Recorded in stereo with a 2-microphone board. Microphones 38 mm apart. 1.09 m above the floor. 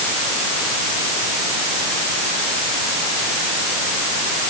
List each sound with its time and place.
Only background noise.